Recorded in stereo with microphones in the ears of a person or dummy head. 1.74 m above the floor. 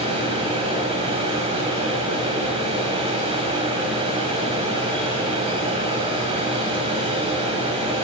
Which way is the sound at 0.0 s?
30° right (ahead or behind).